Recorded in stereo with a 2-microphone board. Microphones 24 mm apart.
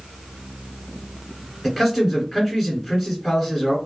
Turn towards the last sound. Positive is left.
turn(degrees=0)  # may be behind; listen again after turning